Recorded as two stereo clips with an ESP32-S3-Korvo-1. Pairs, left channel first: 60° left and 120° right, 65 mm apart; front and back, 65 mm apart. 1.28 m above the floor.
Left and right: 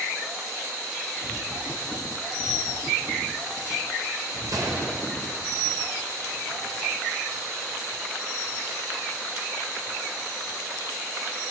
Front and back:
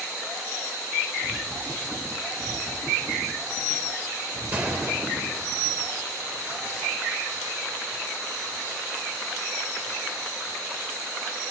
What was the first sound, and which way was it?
A gunshot, 115° right.